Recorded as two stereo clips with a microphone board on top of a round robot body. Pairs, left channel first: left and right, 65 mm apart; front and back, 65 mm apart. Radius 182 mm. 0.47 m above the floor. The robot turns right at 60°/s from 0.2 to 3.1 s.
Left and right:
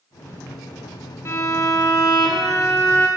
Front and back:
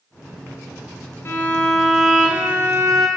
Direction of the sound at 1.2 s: 50° left.